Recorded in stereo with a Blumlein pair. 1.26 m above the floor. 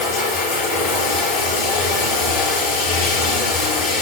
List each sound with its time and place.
0.0 s running water: 45° left, 6.5 m